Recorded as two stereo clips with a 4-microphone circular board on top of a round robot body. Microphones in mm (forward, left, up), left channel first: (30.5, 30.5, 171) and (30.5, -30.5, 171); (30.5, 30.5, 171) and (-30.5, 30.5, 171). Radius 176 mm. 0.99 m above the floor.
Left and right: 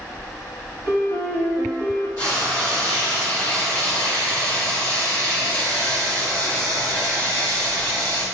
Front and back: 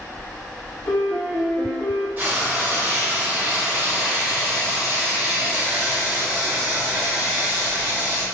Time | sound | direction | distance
0.8 | a piano | 105° right | 1.3 m
2.2 | frying | 125° left | 1.6 m